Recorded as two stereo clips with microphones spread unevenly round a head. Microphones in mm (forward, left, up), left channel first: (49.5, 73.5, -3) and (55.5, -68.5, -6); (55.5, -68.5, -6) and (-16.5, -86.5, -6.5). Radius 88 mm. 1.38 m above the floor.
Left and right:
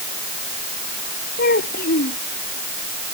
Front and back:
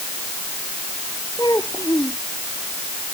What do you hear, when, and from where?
1.4 s a child speaking: 85° left